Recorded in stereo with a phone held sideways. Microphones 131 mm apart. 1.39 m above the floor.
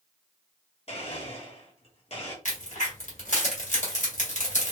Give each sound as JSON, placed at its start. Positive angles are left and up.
{"t": 0.9, "sound": "a blender", "side_deg": 50, "distance_m": 1.1}
{"t": 2.5, "sound": "a crack", "side_deg": 70, "distance_m": 1.6}